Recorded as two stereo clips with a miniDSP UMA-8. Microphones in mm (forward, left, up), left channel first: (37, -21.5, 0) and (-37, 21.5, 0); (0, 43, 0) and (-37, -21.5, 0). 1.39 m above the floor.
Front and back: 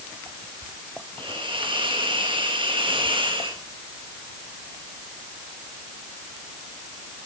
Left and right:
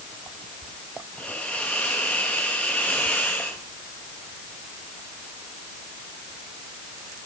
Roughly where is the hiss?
Behind left.